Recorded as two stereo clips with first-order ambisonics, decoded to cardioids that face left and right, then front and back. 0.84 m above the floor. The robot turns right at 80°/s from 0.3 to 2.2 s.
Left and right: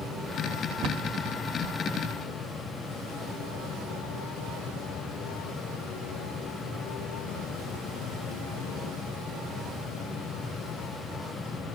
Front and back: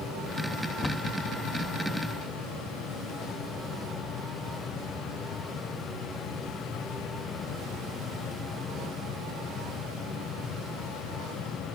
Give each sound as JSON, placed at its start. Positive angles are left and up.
{"t": 0.8, "sound": "a cupboard door", "azimuth_deg": -70}